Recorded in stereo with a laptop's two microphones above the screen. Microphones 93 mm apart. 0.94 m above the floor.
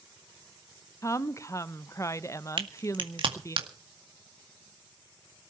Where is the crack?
60° right (ahead or behind), 1.9 m.